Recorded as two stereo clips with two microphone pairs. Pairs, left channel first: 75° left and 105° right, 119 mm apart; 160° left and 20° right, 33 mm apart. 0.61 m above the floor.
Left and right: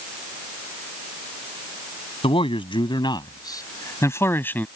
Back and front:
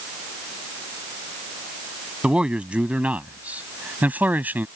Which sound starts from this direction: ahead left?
A man speaking, at 2.2 s.